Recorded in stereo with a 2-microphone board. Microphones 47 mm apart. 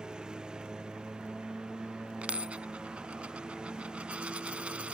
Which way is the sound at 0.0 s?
15° right (ahead or behind).